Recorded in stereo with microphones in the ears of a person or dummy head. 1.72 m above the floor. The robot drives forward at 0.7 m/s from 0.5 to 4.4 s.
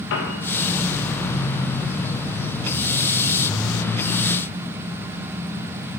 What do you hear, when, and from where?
0.1 s a piano: 75° left (ahead or behind), 1.9 m